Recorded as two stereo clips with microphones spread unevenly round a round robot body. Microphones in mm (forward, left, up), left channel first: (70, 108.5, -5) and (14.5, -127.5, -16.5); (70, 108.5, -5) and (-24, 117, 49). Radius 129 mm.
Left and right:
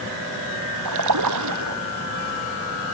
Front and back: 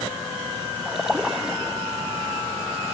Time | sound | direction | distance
0.8 | a splash | 105° right | ?